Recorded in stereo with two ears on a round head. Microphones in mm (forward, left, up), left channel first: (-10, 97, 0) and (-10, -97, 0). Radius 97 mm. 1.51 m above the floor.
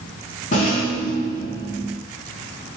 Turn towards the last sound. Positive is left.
turn(degrees=35)  # may be behind; listen again after turning